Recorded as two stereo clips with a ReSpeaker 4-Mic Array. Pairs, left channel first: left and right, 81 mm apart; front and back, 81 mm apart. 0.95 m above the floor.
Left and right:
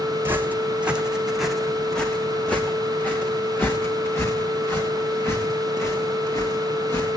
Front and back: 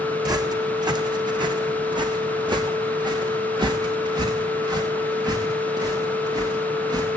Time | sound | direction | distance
0.2 | footsteps | 150° right | 2.5 m